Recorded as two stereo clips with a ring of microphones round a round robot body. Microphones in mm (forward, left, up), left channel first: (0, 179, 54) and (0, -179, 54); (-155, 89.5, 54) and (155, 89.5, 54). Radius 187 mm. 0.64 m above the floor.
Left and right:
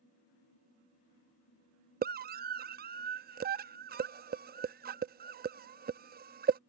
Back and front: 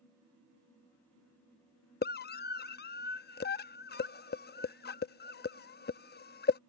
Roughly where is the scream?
Behind right.